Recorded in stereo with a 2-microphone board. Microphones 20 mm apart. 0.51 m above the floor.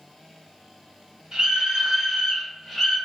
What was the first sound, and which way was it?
A scream, 30° right (ahead or behind).